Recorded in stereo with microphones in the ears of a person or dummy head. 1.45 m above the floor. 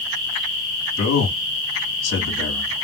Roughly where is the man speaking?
Left.